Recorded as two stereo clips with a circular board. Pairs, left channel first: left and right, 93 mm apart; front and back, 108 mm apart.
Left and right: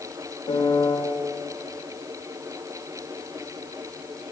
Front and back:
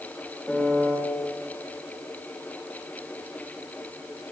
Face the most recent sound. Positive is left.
turn(degrees=80)